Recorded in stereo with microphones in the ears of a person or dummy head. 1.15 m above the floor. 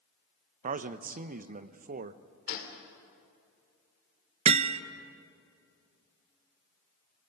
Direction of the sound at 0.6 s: 45° right (ahead or behind).